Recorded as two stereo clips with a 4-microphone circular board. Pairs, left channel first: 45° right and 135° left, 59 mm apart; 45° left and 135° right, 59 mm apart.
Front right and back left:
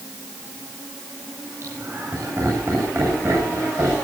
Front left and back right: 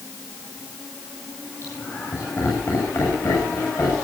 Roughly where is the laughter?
Left.